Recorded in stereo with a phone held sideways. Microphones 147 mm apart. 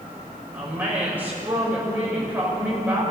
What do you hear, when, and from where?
0.5 s a woman speaking: 10° right (ahead or behind), 6 m